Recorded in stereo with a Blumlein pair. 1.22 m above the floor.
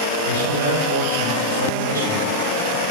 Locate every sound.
0.2 s a man speaking: 70° right, 5 m